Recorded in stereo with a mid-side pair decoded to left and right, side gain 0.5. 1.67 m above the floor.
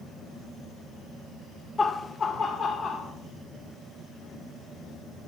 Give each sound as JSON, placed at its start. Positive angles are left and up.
{"t": 1.8, "sound": "laughter", "azimuth_deg": 25, "distance_m": 0.6}